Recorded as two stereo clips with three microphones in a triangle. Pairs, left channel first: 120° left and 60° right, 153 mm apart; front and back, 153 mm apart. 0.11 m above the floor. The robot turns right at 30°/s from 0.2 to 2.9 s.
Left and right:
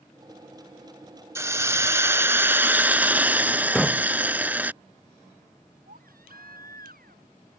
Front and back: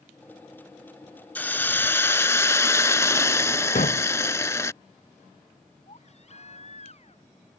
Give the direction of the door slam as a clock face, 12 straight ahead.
11 o'clock.